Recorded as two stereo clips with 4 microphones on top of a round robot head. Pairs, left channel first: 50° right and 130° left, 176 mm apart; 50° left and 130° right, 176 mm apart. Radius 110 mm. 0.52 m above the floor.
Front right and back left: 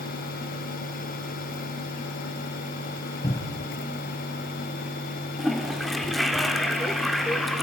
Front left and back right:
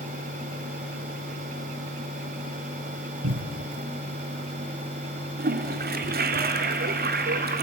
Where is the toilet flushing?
140° right, 1.2 m.